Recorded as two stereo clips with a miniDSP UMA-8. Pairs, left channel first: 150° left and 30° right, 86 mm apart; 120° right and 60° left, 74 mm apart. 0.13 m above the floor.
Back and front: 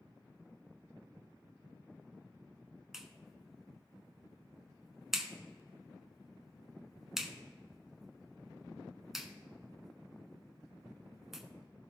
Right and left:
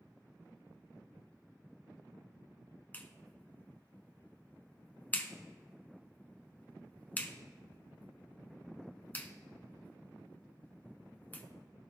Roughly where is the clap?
Right.